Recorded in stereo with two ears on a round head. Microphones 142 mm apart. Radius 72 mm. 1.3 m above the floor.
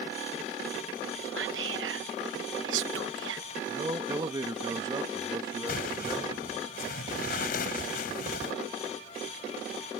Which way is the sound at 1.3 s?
80° right.